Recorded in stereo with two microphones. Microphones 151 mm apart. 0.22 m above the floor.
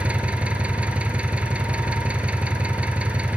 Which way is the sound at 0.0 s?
10° right (ahead or behind).